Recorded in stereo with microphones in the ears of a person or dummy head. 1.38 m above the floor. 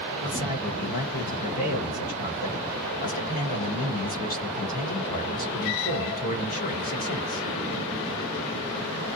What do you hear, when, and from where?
0.2 s a man speaking: 40° left (ahead or behind), 1.3 m